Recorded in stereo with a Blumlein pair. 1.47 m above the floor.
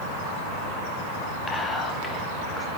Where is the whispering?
15° left, 1.0 m.